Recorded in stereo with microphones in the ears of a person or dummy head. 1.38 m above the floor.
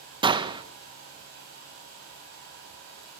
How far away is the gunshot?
About 1.2 m.